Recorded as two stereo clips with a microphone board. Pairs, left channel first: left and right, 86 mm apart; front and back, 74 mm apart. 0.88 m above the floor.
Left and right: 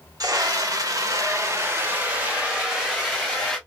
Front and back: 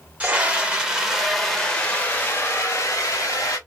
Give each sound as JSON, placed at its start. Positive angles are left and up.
{"t": 0.2, "sound": "a scream", "azimuth_deg": -120, "distance_m": 1.4}